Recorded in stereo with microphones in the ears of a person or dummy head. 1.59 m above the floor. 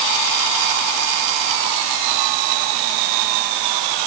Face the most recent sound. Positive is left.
No sound to turn to.